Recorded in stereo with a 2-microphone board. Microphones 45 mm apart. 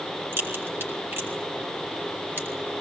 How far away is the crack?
About 5.5 m.